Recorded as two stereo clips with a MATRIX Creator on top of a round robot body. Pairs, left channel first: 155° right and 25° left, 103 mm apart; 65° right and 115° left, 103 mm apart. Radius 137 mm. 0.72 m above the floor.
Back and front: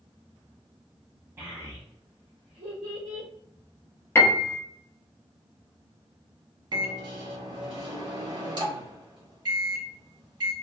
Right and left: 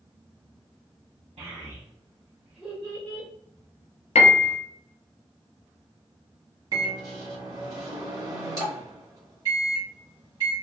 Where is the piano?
90° right, 0.5 m.